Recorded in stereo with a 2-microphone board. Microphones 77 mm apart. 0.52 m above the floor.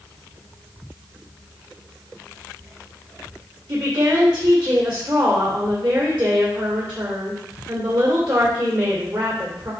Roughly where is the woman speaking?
Right.